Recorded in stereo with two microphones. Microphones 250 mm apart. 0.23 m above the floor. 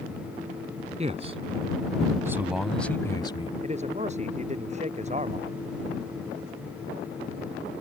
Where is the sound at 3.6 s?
30° right (ahead or behind).